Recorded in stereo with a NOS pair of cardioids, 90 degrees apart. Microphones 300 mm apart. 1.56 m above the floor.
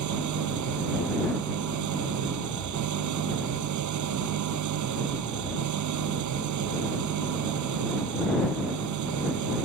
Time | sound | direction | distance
0.0 | an engine running | 70° right | ?